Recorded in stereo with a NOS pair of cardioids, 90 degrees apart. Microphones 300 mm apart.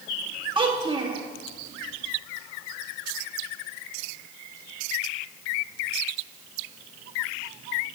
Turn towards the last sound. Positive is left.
turn(degrees=-15)